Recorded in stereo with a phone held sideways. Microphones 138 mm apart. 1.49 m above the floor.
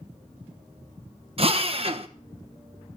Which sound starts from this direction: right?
A drill, at 1.4 s.